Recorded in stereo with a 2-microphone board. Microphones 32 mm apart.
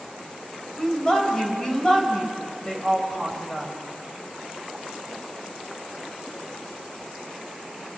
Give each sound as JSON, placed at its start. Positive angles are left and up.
{"t": 0.8, "sound": "a woman speaking", "side_deg": 20, "distance_m": 4.0}